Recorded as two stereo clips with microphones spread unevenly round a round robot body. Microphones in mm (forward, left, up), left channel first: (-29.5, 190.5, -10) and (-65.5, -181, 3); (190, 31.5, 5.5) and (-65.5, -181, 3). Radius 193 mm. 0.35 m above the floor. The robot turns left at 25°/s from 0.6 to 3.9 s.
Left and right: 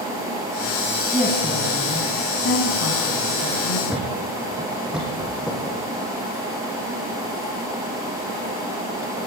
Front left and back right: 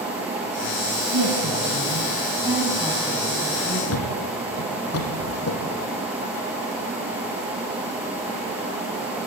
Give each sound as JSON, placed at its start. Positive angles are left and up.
{"t": 1.1, "sound": "a woman speaking", "azimuth_deg": 175, "distance_m": 3.0}
{"t": 3.9, "sound": "a thud", "azimuth_deg": -5, "distance_m": 3.0}